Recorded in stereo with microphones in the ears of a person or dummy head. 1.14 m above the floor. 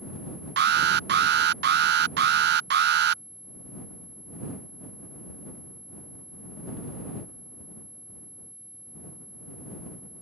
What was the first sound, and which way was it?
An alarm, 55° right (ahead or behind).